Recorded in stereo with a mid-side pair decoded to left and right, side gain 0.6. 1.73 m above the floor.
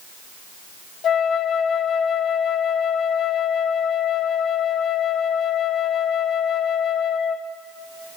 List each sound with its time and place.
1.0 s a flute: 45° left, 1.5 m